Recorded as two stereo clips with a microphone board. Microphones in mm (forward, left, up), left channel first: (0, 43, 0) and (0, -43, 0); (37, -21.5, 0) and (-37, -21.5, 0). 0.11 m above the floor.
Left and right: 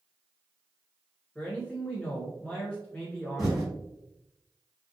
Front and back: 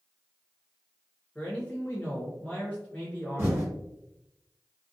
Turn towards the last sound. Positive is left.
turn(degrees=-175)